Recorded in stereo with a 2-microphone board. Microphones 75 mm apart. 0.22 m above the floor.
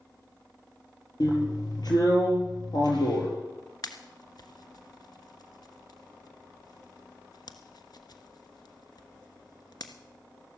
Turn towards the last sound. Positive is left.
turn(degrees=65)  # may be behind; listen again after turning